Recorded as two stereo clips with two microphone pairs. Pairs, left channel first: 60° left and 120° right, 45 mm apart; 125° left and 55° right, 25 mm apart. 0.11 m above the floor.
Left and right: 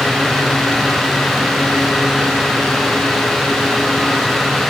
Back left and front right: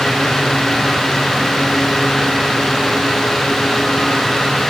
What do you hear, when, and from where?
Only background noise.